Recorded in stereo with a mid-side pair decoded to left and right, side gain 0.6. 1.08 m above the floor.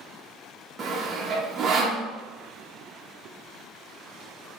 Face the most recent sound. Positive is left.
turn(degrees=-35)